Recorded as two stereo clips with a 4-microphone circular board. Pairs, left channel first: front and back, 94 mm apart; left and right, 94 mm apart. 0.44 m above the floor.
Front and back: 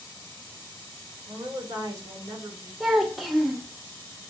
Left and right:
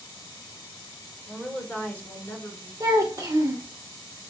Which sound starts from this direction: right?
A child speaking, at 2.8 s.